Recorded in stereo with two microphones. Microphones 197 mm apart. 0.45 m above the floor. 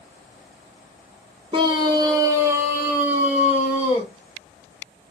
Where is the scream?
25° right (ahead or behind), 0.9 m; by 4.1 s 5° right (ahead or behind), 3 m.